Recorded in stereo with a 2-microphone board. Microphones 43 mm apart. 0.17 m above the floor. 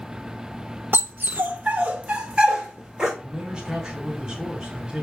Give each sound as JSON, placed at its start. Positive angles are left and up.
{"t": 0.9, "sound": "a dog barking", "side_deg": -50, "distance_m": 0.5}
{"t": 3.2, "sound": "a man speaking", "side_deg": -15, "distance_m": 1.2}